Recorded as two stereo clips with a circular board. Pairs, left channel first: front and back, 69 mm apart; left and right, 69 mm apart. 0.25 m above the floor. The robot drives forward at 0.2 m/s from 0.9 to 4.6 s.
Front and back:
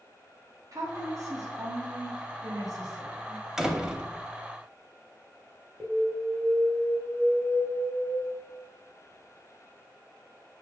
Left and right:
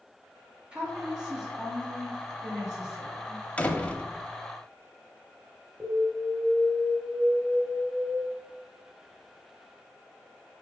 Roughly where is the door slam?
Left.